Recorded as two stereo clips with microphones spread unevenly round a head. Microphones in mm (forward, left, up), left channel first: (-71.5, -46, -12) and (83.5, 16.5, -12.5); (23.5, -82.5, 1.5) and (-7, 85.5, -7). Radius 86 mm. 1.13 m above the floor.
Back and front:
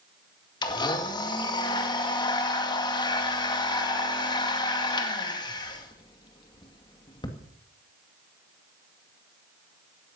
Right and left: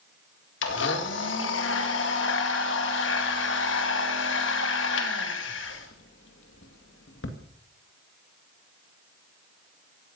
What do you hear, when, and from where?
0.6 s a blender: 95° right, 2 m